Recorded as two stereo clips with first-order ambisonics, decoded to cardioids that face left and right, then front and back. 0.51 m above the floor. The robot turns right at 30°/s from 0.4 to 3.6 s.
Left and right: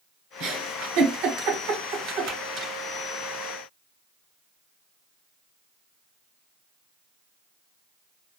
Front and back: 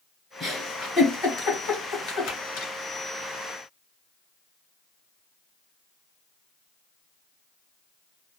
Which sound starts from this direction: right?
A giggle, at 0.4 s.